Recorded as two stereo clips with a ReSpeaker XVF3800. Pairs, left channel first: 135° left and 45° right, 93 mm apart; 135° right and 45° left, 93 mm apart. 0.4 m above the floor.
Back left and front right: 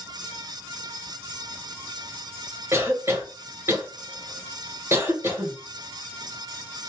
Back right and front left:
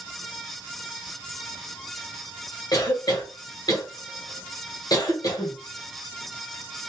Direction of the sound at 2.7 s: 105° right.